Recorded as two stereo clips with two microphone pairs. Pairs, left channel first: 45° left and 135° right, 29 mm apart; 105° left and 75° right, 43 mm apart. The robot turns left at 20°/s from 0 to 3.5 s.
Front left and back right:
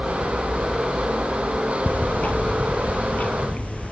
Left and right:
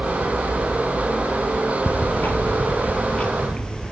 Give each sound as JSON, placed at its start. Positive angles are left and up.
{"t": 1.9, "sound": "ticking", "azimuth_deg": 70, "distance_m": 1.4}